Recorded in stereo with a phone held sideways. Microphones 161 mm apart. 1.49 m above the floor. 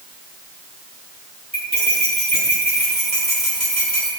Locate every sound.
1.5 s cutlery clinking: 45° right (ahead or behind), 4 m